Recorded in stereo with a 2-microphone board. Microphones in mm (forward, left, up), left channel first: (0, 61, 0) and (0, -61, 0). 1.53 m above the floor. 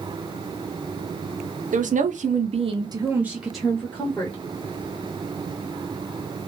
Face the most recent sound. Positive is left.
turn(degrees=20)  # may be behind; listen again after turning